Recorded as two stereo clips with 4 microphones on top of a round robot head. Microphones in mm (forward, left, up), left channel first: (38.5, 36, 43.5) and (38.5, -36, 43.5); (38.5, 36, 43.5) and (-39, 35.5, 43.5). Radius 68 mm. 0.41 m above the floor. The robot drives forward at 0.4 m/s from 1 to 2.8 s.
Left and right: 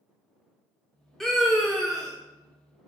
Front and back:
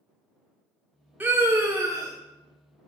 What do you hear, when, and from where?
1.2 s a scream: 165° left, 1.0 m; by 2.1 s 175° left, 1.2 m